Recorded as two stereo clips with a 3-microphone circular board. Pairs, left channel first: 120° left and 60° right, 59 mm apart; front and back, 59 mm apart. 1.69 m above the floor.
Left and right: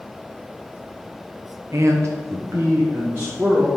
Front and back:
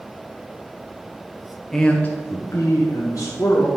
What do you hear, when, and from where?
1.7 s a man speaking: 85° right, 0.8 m; by 3.7 s 10° left, 1.9 m